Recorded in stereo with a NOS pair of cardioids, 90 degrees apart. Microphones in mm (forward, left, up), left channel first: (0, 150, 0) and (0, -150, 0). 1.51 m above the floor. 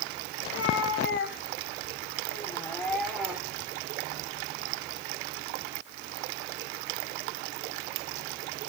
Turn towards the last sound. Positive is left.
turn(degrees=-10)